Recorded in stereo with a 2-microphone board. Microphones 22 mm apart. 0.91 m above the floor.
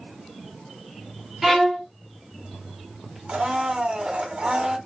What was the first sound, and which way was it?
A violin, 15° right (ahead or behind).